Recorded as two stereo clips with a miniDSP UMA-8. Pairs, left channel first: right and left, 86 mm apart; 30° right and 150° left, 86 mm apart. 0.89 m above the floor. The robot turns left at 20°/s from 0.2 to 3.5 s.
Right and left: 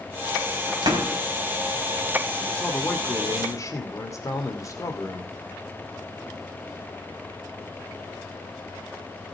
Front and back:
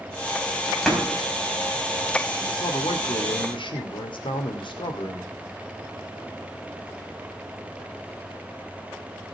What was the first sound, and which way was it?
A door slam, 60° left.